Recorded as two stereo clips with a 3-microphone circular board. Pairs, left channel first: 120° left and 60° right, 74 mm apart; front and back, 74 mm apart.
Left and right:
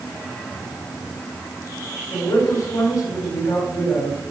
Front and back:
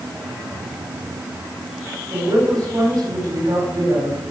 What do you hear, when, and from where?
2.1 s a woman speaking: 145° left, 5.5 m